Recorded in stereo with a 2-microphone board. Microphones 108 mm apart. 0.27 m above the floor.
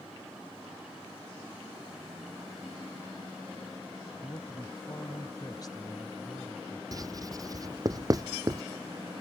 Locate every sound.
4.2 s a man speaking: 40° left (ahead or behind)
6.9 s writing: 35° right (ahead or behind)